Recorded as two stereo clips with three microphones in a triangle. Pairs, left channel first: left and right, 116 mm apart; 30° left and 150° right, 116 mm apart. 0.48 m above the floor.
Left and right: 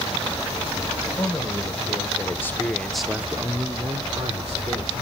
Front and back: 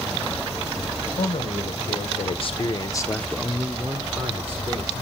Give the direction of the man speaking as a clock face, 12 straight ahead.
11 o'clock.